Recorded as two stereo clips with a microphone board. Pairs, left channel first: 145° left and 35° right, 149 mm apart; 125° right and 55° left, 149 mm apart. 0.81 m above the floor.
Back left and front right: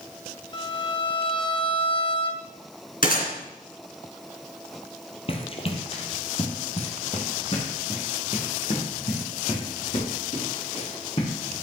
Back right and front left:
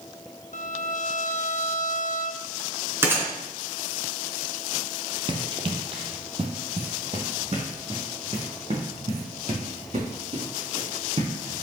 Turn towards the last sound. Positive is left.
turn(degrees=100)